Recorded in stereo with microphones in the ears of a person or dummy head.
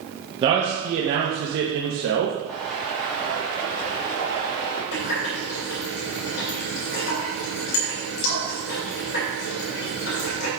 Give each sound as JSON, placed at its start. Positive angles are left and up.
{"t": 0.4, "sound": "a man speaking", "side_deg": -30, "distance_m": 1.2}
{"t": 2.5, "sound": "footsteps", "side_deg": 0, "distance_m": 3.5}
{"t": 4.9, "sound": "a running tap", "side_deg": 70, "distance_m": 3.0}